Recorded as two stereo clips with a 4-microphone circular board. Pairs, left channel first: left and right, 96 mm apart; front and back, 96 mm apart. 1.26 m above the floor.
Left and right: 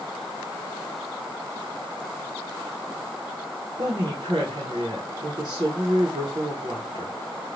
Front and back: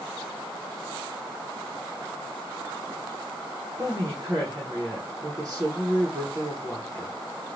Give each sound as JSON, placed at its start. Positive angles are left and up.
{"t": 3.8, "sound": "a woman speaking", "azimuth_deg": -120, "distance_m": 0.8}